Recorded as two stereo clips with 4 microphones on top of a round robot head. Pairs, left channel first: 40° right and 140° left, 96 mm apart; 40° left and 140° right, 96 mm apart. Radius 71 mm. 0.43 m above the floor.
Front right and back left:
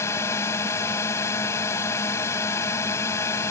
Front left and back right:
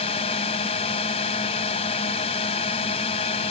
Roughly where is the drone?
Ahead left.